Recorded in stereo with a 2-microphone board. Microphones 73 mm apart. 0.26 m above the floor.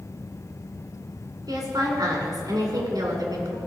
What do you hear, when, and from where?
1.5 s a woman speaking: 65° right (ahead or behind), 2 m